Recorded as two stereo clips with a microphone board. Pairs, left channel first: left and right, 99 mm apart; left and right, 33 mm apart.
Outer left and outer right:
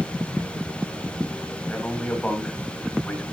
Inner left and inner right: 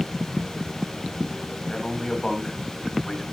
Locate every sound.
1.6 s a man speaking: 10° left (ahead or behind), 3 m